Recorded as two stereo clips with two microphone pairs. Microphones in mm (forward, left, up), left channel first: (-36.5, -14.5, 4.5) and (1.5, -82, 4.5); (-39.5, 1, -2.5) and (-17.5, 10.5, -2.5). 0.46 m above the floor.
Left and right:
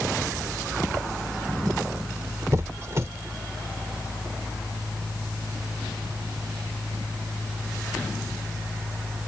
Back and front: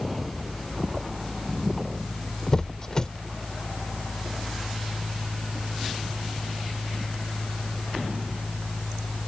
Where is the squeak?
105° right.